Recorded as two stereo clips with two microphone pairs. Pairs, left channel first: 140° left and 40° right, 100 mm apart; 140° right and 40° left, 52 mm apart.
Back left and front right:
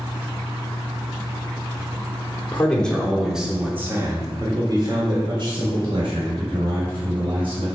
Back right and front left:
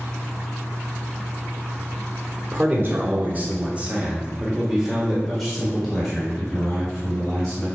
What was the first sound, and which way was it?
A man speaking, 70° left.